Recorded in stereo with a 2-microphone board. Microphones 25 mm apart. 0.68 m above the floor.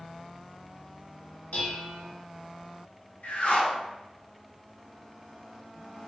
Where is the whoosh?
70° left (ahead or behind), 0.9 m.